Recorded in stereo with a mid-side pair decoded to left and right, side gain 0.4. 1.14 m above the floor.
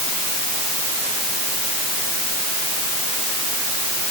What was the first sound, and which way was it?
Only background noise.